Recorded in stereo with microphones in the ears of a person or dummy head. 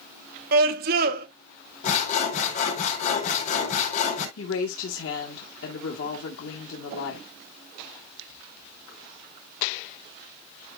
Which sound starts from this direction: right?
A scream, at 0.5 s.